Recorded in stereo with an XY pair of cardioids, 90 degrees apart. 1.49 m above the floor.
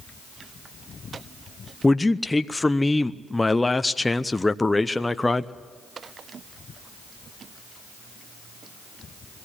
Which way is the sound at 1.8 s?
15° left.